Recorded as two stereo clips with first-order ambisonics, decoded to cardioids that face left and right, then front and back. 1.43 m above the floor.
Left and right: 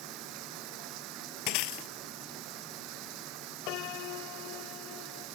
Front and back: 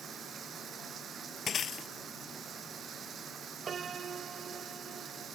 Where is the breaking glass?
65° left.